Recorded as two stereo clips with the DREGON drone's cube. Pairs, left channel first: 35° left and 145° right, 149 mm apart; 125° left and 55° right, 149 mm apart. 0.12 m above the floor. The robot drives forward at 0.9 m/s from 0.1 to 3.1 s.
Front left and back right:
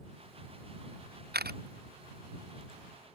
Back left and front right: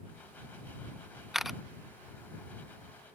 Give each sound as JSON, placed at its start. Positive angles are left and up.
{"t": 1.3, "sound": "a camera shutter", "azimuth_deg": -145}